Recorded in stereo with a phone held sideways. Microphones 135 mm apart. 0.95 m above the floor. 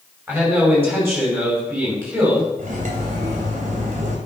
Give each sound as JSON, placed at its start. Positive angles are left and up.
{"t": 0.3, "sound": "a man speaking", "side_deg": -15, "distance_m": 5.5}
{"t": 2.6, "sound": "cutlery clinking", "side_deg": -70, "distance_m": 2.5}